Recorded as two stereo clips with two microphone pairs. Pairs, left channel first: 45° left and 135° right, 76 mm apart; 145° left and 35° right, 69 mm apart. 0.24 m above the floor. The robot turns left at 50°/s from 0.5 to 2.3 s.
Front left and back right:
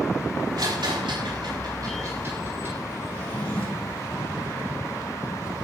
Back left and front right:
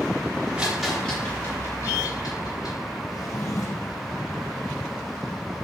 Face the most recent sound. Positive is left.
turn(degrees=120)